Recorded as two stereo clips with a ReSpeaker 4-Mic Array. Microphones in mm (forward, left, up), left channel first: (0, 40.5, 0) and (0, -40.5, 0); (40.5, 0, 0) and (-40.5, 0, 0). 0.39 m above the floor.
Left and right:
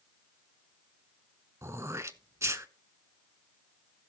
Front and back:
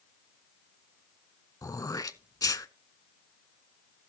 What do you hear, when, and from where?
1.6 s throat clearing: 40° right, 0.6 m